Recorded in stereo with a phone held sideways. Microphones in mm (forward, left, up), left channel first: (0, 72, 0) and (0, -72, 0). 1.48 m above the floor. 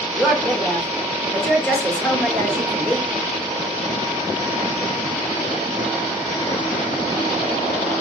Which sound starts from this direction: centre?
A woman speaking, at 0.1 s.